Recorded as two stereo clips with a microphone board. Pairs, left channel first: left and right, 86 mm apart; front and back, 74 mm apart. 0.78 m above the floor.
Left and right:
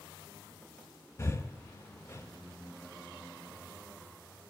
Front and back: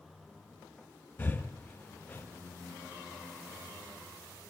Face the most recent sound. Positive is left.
turn(degrees=50)